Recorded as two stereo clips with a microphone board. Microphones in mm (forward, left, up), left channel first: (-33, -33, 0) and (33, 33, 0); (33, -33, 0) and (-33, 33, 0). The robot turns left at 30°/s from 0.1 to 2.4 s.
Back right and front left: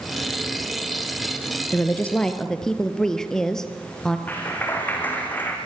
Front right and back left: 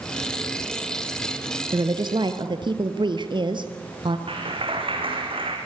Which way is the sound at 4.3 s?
155° left.